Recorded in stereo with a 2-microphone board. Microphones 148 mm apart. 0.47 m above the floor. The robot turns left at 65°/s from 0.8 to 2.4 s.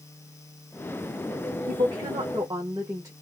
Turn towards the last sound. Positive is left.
turn(degrees=-150)